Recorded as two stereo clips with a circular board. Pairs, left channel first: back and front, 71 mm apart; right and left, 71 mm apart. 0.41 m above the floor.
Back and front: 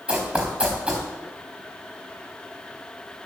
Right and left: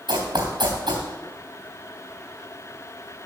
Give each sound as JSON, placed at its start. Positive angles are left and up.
{"t": 0.1, "sound": "running footsteps", "azimuth_deg": 80, "distance_m": 3.0}